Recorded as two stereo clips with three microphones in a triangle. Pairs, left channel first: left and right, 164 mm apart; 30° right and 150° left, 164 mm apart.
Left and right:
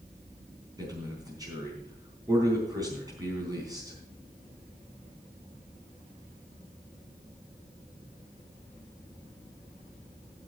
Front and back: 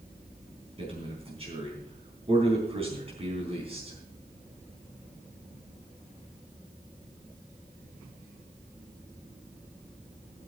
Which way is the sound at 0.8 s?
155° right.